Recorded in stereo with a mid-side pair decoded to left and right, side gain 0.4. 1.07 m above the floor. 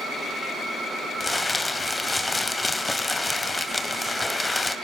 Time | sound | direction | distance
1.2 | crumpling | 20° left | 2 m